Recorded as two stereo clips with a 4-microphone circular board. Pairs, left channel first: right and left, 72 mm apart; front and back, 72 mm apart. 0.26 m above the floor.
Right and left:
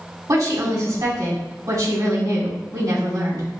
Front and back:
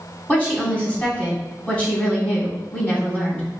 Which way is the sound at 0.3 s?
65° left.